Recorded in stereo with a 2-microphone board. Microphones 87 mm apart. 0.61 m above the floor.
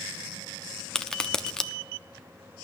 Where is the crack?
10° left (ahead or behind), 0.7 m.